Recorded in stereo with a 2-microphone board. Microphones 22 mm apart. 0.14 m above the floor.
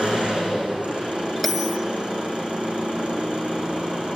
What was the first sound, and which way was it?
An engine running, 75° right (ahead or behind).